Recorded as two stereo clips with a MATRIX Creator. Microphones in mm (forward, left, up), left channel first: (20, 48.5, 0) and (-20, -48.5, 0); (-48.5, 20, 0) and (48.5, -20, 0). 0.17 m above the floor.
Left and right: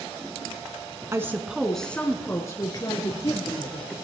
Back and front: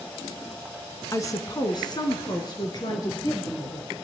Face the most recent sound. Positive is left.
turn(degrees=105)